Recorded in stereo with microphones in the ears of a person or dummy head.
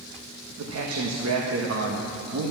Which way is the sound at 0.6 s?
85° right.